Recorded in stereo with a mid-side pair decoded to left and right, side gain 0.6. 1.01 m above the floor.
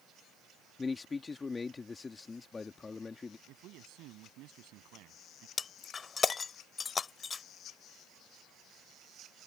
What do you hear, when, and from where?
0.8 s a man speaking: 25° left
3.5 s a man speaking: 65° right
5.6 s breaking glass: 30° left